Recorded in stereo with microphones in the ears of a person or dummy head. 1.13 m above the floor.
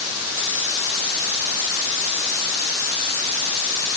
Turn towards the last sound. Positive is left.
No sound to turn to.